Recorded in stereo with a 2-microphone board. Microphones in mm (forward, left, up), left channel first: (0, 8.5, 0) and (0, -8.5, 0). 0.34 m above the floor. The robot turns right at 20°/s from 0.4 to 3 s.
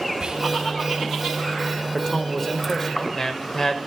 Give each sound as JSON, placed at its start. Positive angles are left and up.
{"t": 0.2, "sound": "whispering", "side_deg": -50, "distance_m": 2.5}
{"t": 1.9, "sound": "a man speaking", "side_deg": 25, "distance_m": 1.2}